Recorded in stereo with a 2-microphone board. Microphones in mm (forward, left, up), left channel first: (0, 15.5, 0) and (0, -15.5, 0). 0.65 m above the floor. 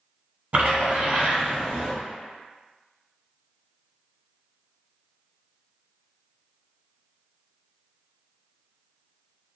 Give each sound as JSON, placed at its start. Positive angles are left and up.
{"t": 0.5, "sound": "a splash", "side_deg": -55, "distance_m": 1.1}